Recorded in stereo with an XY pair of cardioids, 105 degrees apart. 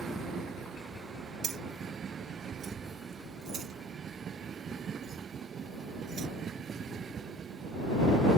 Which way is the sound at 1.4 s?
55° right.